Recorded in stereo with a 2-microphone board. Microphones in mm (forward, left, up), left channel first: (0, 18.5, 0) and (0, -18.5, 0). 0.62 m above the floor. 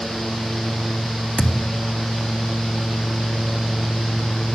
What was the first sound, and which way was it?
A thud, 35° left (ahead or behind).